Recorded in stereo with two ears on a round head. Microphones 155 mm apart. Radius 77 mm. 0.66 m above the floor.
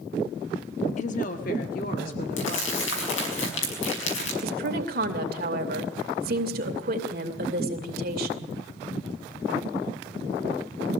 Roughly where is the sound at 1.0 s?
Left.